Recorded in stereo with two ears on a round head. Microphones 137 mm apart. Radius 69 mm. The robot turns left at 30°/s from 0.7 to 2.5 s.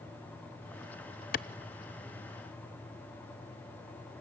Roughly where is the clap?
Left.